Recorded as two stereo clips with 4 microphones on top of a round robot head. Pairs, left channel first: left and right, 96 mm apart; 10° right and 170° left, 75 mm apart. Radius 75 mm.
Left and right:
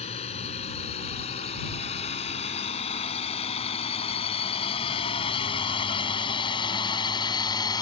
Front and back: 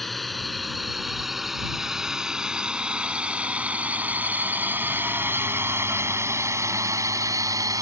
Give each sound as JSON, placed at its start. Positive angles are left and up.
{"t": 0.0, "sound": "a drone", "azimuth_deg": 75}